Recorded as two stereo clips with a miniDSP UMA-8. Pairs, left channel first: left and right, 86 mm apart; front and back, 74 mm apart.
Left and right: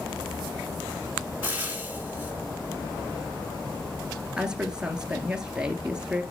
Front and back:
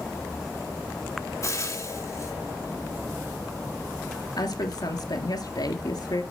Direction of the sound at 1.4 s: 30° right.